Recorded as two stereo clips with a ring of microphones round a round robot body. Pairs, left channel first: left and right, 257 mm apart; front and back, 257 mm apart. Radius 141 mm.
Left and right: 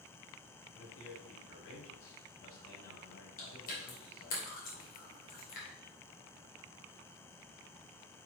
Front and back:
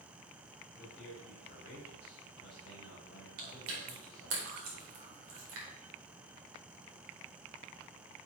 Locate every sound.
0.7 s a man speaking: 55° left, 4 m
3.4 s chewing: 145° left, 2 m